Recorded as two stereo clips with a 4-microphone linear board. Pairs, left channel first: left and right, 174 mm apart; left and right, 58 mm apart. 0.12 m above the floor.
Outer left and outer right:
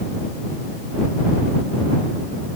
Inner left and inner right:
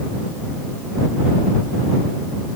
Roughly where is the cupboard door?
No cupboard door in this recording.